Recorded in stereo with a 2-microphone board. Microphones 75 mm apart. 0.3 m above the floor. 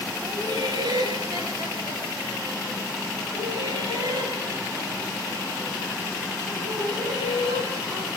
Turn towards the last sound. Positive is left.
turn(degrees=-60)  # may be behind; listen again after turning